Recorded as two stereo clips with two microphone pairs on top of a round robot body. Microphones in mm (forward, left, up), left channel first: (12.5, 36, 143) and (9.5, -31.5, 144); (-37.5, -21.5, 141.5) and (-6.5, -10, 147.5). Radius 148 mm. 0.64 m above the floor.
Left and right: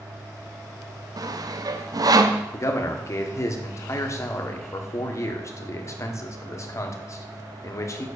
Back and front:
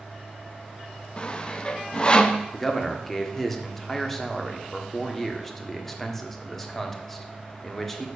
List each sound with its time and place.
1.2 s sawing: 105° right, 0.9 m
2.5 s a man speaking: 125° left, 1.6 m